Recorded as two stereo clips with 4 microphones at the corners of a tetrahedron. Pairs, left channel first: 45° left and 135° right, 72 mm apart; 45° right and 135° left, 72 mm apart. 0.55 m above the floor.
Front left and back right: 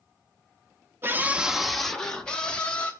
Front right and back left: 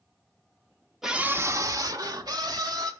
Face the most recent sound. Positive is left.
turn(degrees=115)